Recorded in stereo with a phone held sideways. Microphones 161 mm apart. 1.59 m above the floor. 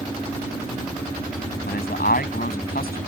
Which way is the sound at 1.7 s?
75° left (ahead or behind).